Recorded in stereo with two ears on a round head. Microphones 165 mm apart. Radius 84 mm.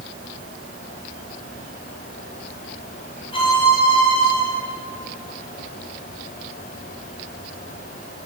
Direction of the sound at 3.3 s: 30° left (ahead or behind).